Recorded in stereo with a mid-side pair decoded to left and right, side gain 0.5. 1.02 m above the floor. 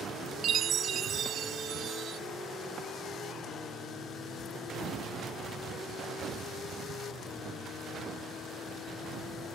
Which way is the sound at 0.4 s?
55° right.